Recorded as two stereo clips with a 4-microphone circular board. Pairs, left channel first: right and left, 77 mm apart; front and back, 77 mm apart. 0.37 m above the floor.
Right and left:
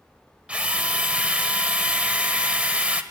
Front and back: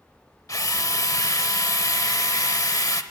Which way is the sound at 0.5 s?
20° left.